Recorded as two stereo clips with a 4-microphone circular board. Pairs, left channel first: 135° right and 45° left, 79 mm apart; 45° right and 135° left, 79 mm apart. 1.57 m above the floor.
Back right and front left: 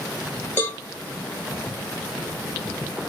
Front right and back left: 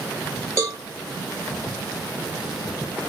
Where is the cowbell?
165° left, 1.3 m.